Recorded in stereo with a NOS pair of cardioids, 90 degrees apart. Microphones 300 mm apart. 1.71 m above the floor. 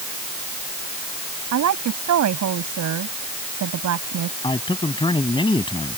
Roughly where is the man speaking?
Ahead.